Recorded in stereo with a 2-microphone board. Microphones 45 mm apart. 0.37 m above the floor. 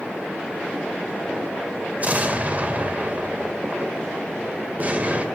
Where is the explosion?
35° right (ahead or behind), 1.4 m.